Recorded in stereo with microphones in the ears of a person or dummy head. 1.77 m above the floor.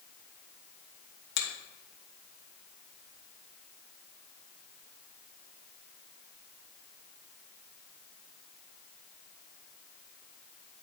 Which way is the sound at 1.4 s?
70° left (ahead or behind).